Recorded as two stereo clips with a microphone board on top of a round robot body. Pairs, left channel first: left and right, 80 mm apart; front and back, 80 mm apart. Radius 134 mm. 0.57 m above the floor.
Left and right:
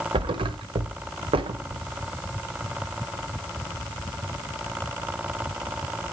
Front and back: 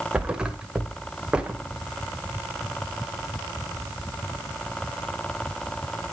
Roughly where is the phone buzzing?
I don't hear a phone buzzing.